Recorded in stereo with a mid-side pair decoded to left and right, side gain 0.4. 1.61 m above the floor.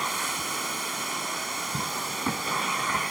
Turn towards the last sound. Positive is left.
turn(degrees=-20)